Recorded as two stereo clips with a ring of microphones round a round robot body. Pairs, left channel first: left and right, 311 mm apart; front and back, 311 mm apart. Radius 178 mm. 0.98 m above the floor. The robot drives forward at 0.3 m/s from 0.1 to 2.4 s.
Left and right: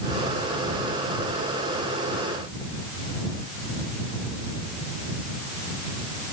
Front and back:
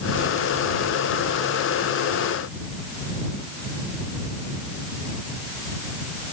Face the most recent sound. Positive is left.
No sound to turn to.